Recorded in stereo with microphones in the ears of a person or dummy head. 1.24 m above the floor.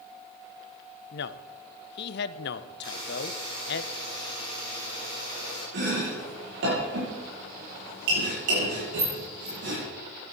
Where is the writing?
No writing in this recording.